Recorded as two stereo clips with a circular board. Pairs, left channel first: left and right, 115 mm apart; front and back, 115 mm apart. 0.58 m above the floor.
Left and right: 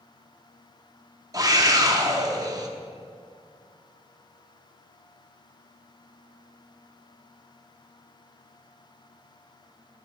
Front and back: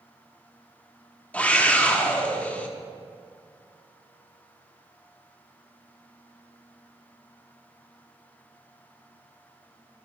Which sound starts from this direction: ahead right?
A scream, at 1.3 s.